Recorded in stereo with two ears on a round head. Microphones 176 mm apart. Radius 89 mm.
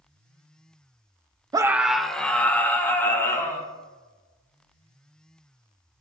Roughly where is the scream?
Centre.